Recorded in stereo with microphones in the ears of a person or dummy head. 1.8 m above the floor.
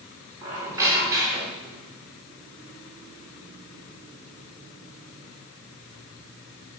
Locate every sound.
0.4 s a squeak: 20° right (ahead or behind), 4 m